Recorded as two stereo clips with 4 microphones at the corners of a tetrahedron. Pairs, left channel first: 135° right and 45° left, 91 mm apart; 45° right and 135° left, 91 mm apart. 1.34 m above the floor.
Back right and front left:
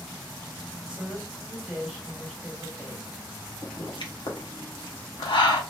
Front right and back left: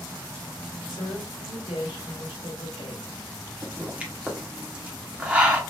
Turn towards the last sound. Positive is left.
turn(degrees=-150)